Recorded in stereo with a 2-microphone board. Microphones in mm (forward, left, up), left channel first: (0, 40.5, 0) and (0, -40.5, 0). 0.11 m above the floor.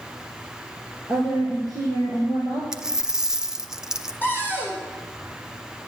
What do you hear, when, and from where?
1.1 s a woman speaking: 50° left (ahead or behind), 1.9 m; by 2.6 s 65° left (ahead or behind), 2.5 m
2.7 s a dropped coin: 10° right (ahead or behind), 0.5 m
4.2 s a cupboard door: 25° left (ahead or behind), 3 m